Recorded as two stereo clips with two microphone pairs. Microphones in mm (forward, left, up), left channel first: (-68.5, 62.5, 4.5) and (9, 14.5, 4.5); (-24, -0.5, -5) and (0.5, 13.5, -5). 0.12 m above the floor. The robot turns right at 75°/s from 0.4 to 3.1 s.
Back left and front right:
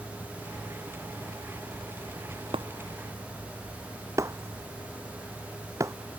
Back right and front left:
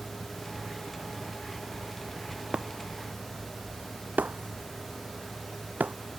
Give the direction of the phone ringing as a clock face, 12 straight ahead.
I don't hear a phone ringing.